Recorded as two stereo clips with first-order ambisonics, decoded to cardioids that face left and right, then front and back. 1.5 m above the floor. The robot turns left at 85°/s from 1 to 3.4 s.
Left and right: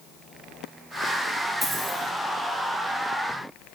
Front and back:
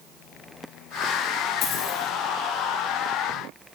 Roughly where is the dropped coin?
Ahead.